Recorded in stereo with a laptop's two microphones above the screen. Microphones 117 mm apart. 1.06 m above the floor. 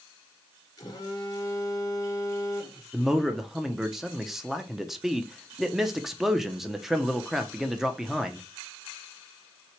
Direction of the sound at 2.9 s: 5° right (ahead or behind).